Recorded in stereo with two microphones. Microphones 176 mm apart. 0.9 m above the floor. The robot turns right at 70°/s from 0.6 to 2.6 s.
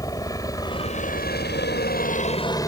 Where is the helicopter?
20° left (ahead or behind).